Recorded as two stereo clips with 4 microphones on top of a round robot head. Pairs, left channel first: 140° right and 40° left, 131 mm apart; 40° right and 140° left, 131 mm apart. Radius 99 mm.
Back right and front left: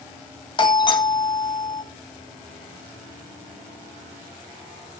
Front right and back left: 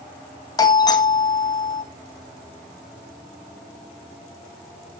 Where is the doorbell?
95° right, 1.5 m.